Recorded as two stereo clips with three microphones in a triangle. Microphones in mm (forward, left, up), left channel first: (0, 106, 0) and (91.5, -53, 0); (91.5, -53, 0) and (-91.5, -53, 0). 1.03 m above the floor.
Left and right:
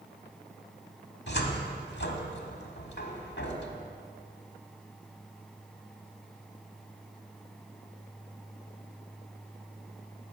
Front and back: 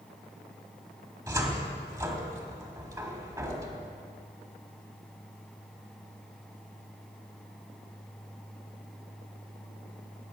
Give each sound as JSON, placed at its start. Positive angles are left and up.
{"t": 1.3, "sound": "a cupboard door", "azimuth_deg": 110, "distance_m": 1.3}